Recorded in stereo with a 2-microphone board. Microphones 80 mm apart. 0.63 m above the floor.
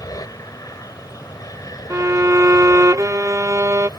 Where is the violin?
40° right (ahead or behind).